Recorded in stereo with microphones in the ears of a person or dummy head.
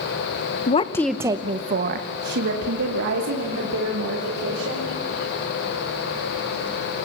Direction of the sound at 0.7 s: 35° left (ahead or behind).